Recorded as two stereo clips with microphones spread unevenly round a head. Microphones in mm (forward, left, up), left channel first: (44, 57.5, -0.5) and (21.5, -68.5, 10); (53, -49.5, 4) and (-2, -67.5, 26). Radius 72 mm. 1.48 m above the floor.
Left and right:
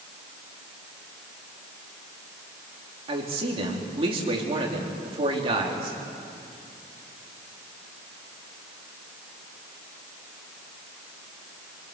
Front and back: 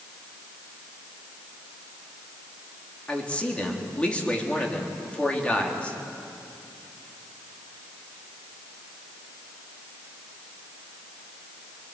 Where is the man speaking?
55° right, 4 m.